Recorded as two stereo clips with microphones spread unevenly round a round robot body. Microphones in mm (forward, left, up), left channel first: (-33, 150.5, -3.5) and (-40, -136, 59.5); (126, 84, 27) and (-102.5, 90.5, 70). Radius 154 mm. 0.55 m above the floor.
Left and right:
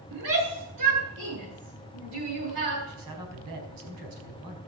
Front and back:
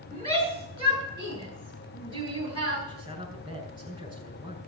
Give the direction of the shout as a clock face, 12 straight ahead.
4 o'clock.